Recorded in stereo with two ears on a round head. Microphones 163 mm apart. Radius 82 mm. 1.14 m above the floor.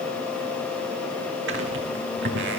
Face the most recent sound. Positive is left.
turn(degrees=-65)  # may be behind; listen again after turning